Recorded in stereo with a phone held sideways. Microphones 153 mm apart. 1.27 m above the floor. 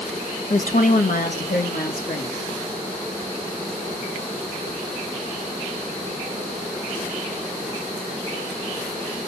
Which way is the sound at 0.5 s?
55° left (ahead or behind).